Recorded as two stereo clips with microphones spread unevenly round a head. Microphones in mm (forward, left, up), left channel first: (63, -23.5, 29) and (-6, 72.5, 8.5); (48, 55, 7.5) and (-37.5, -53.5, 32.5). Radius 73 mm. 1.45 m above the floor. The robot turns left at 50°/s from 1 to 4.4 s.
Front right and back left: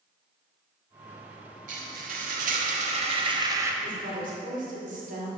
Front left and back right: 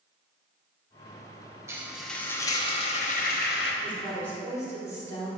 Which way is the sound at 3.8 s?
155° left.